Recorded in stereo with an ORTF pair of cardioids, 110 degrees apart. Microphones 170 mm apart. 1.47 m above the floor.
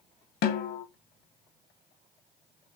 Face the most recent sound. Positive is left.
turn(degrees=65)